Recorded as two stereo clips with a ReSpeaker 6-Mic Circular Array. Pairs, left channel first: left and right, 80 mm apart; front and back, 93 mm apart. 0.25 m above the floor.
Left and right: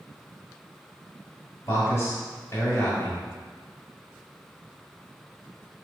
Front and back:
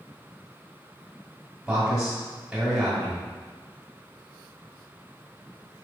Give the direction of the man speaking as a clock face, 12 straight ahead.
9 o'clock.